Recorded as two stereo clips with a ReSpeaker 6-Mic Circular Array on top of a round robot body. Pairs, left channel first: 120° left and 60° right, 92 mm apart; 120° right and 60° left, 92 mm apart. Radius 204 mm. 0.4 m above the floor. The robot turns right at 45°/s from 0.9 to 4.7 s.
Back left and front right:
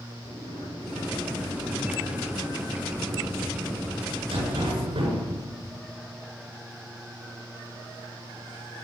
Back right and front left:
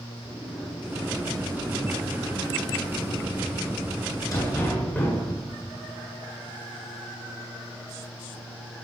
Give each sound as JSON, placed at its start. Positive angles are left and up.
{"t": 0.2, "sound": "a sliding door", "azimuth_deg": 140, "distance_m": 8.0}